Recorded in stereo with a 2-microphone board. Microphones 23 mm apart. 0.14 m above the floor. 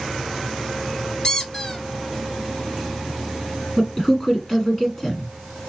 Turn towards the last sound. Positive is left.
turn(degrees=25)  # may be behind; listen again after turning